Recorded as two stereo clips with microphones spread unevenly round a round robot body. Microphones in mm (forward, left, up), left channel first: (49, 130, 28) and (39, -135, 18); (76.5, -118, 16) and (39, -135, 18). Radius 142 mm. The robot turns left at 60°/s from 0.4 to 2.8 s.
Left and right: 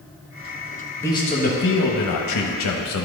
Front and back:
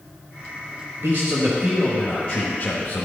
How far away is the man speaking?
About 1.0 m.